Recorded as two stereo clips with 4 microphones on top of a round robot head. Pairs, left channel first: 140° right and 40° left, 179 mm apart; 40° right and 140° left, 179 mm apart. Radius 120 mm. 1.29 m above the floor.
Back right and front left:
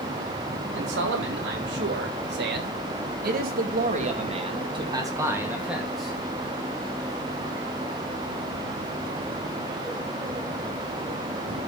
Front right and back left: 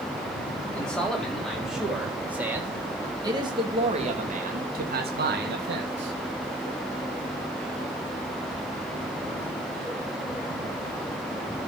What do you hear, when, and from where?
0.7 s a man speaking: 45° left, 4.5 m; by 6.2 s 130° left, 3 m